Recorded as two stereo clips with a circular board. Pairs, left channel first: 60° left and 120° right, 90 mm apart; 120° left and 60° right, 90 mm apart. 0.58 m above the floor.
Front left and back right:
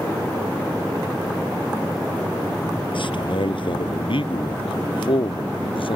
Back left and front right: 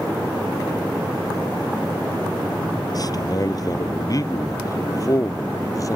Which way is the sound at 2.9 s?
75° left.